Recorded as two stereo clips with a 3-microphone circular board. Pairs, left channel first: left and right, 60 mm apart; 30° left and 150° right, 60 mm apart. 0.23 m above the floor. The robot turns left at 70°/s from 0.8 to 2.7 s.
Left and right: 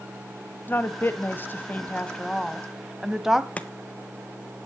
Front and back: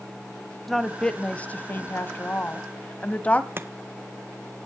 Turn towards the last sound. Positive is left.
turn(degrees=160)